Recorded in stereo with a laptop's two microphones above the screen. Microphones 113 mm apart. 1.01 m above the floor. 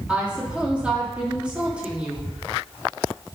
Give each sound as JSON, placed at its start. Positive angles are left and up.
{"t": 0.1, "sound": "a woman speaking", "side_deg": -10, "distance_m": 2.5}